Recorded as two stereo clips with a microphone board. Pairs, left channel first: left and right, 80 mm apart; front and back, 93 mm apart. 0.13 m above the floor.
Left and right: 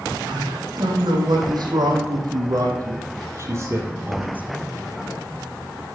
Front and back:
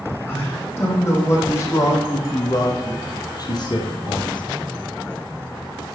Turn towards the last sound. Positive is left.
turn(degrees=-20)